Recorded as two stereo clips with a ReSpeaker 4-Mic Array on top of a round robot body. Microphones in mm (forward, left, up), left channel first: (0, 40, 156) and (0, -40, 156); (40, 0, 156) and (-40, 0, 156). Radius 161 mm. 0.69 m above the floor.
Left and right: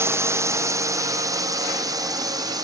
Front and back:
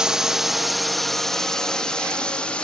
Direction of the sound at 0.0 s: 105° right.